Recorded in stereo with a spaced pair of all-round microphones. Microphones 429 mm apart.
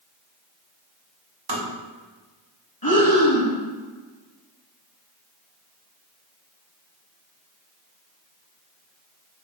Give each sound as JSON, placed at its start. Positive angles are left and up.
{"t": 1.5, "sound": "tapping", "side_deg": -60, "distance_m": 1.1}
{"t": 2.8, "sound": "breathing", "side_deg": 55, "distance_m": 1.1}